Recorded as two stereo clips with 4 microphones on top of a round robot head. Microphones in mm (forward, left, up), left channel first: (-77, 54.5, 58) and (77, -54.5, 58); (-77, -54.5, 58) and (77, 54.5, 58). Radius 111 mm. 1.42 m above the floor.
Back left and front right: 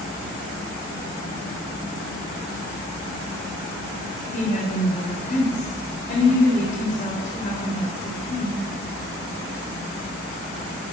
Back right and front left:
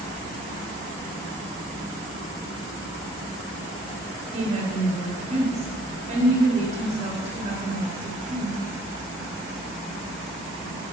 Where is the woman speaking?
95° left, 3.5 m.